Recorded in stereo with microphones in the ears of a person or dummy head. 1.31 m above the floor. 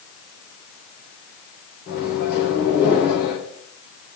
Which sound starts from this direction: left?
A microwave, at 1.9 s.